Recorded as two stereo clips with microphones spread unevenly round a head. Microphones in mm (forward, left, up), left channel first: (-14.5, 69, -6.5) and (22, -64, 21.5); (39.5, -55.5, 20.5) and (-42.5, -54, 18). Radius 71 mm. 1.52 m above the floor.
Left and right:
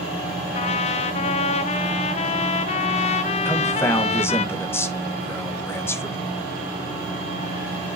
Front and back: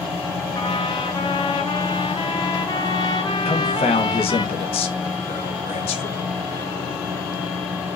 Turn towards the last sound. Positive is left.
turn(degrees=30)